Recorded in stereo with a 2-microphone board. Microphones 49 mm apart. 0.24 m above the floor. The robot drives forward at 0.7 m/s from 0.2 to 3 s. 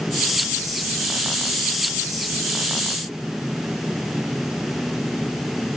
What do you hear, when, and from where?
Only background noise.